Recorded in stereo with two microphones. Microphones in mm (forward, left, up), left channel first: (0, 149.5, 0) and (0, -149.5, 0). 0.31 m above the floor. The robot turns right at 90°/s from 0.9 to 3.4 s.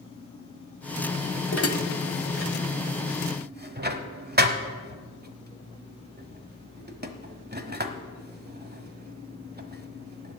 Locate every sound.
1.5 s dishes clattering: 40° left (ahead or behind), 1.1 m; by 10.4 s 30° right (ahead or behind), 1.1 m